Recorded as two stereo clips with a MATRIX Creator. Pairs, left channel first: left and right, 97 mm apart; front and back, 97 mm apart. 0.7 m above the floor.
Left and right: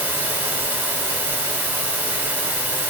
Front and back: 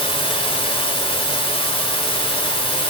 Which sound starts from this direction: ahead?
Running water, at 0.0 s.